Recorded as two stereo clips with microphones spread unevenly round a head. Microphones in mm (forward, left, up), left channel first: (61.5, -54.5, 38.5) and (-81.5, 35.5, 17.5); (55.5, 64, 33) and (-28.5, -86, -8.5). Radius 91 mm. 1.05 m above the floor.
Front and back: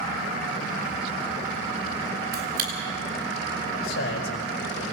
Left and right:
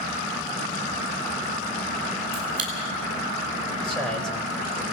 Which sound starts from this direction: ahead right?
A man speaking, at 3.8 s.